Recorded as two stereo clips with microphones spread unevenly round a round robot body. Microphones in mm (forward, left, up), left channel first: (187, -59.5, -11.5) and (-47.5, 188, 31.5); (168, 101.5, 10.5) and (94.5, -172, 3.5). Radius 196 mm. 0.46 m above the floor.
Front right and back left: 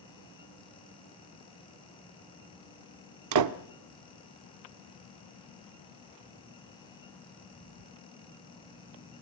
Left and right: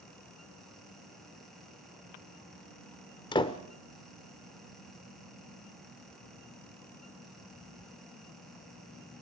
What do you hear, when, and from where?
3.3 s a door slam: 145° left, 1.1 m